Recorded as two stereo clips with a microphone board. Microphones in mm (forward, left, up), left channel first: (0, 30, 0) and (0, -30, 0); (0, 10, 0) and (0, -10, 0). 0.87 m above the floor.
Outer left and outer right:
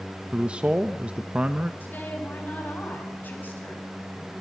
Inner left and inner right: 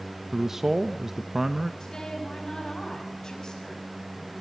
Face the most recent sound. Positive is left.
turn(degrees=30)  # may be behind; listen again after turning